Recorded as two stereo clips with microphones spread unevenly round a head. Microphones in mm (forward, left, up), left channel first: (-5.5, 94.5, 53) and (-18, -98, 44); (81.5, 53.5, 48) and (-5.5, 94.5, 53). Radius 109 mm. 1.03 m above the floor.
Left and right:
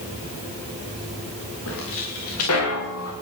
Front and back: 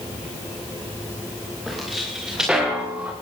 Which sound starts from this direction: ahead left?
Footsteps, at 1.7 s.